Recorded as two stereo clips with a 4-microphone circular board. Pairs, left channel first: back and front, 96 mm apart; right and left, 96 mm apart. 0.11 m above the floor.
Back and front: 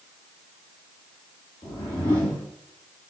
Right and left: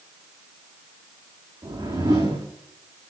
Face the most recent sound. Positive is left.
turn(degrees=140)